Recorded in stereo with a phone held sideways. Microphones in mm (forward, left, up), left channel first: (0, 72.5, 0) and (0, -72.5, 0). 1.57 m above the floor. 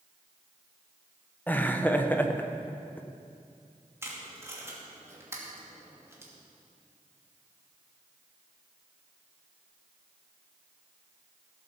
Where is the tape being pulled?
20° right (ahead or behind), 2.5 m.